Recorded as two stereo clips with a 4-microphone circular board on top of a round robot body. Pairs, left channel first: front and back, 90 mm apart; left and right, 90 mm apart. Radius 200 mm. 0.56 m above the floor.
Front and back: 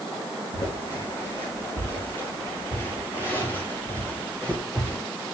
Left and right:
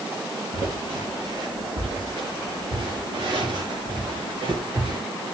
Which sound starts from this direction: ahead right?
Footsteps, at 0.5 s.